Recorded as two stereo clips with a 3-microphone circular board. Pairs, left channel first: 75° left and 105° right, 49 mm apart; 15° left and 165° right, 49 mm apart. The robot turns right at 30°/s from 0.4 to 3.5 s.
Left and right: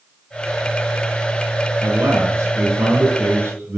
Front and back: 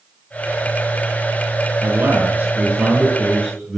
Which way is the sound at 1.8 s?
135° right.